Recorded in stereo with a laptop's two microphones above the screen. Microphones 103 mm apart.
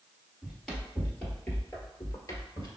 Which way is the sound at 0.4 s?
Centre (ahead or behind).